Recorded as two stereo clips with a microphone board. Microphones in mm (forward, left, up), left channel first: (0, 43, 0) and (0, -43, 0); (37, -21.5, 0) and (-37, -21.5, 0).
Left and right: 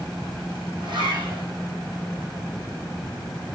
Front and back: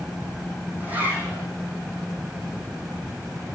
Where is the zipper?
115° right, 4.5 m.